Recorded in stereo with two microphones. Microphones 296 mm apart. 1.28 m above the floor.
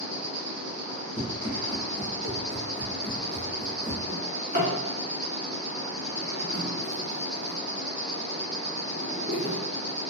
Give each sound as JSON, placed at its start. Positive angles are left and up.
{"t": 0.0, "sound": "an insect", "side_deg": -70, "distance_m": 1.2}
{"t": 1.2, "sound": "running footsteps", "side_deg": 25, "distance_m": 1.5}
{"t": 4.1, "sound": "a drawer", "side_deg": -35, "distance_m": 1.7}